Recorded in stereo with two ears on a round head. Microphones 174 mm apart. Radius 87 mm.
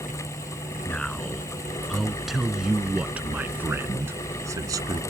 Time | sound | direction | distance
0.8 | a man speaking | 5° left (ahead or behind) | ?